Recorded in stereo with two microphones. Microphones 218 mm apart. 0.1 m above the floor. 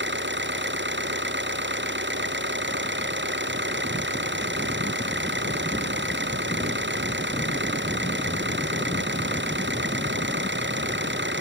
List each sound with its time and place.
0.0 s an engine running: 55° right (ahead or behind)